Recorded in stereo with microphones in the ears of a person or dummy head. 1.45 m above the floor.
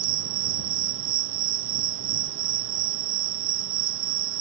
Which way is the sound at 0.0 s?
60° right (ahead or behind).